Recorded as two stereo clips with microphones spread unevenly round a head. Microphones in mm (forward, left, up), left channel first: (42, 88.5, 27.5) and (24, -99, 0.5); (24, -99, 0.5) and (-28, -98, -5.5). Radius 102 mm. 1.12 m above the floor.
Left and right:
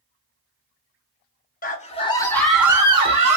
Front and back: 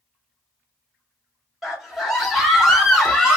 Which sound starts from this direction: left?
A scream, at 1.6 s.